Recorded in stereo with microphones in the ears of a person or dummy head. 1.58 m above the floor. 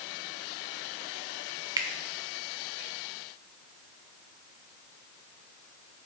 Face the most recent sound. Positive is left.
turn(degrees=-15)  # may be behind; listen again after turning